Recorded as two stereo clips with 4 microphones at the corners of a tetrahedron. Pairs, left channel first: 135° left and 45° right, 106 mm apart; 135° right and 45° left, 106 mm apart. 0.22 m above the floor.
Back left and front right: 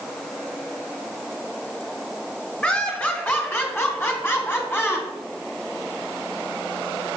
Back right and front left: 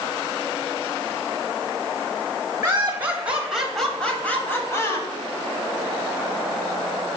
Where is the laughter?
80° left, 1.3 m; by 5.1 s 170° right, 1.4 m.